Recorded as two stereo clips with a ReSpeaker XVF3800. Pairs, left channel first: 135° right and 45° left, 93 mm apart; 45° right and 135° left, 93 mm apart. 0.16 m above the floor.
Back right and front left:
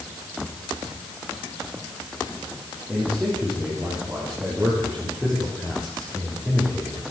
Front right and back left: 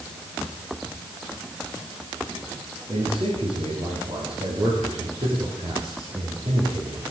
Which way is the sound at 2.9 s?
115° left.